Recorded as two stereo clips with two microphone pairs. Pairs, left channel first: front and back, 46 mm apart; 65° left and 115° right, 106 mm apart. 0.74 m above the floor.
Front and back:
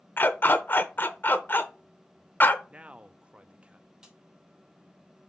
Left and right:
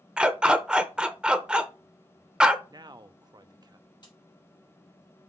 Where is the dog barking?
35° right, 0.7 m.